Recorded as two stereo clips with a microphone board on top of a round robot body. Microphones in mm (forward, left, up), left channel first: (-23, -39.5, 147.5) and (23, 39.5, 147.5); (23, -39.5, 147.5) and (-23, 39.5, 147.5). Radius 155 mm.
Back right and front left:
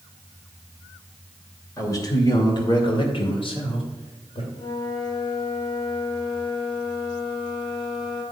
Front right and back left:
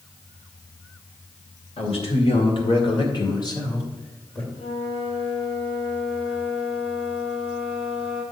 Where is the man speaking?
65° right, 2.5 m; by 4.4 s 125° right, 2.5 m.